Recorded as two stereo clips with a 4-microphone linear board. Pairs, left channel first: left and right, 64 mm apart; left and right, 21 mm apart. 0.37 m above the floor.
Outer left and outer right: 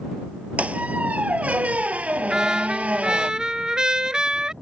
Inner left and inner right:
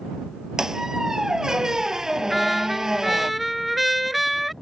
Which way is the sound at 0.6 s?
20° right (ahead or behind).